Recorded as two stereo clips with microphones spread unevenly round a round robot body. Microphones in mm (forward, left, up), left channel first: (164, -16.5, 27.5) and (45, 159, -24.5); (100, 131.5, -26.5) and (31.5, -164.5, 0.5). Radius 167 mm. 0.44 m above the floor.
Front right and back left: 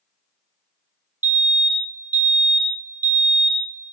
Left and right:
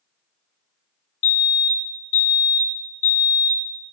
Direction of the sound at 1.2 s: 55° left.